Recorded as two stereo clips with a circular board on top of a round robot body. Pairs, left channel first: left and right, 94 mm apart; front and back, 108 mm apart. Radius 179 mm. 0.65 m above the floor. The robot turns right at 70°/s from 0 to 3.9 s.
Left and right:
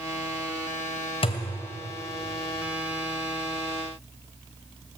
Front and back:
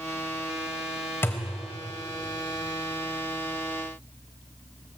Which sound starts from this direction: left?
A thud, at 1.2 s.